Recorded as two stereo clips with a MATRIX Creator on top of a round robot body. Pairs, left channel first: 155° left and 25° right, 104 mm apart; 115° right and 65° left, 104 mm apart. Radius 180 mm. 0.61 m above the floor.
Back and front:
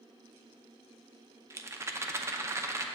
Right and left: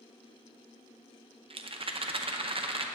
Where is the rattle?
40° left, 0.7 m.